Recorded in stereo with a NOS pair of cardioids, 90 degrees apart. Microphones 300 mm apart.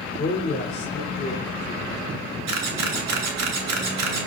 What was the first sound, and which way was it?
A man speaking, 25° left.